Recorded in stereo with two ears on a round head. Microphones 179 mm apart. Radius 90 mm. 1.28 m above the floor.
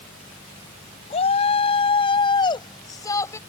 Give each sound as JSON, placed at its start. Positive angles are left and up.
{"t": 1.1, "sound": "a shout", "side_deg": 30}